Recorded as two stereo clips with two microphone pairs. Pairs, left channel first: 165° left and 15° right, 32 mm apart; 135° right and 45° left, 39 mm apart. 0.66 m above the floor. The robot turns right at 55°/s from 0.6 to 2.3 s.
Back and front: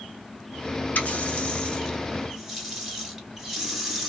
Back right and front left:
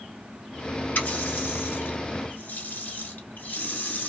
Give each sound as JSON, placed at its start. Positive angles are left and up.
{"t": 0.9, "sound": "a running tap", "azimuth_deg": -175, "distance_m": 0.8}